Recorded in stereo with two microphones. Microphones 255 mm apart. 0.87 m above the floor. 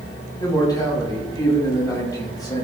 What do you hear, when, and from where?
0.4 s a man speaking: 15° left (ahead or behind), 6 m